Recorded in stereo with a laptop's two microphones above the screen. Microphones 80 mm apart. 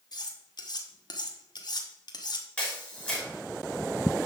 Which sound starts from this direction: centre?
A camera shutter, at 2.6 s.